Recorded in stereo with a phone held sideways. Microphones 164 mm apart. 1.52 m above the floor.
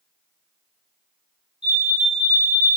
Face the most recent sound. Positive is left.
turn(degrees=30)  # may be behind; listen again after turning